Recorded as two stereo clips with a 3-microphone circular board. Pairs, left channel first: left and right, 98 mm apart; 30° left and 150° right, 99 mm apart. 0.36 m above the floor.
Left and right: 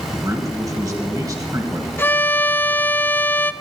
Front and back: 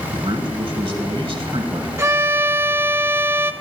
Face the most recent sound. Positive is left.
turn(degrees=155)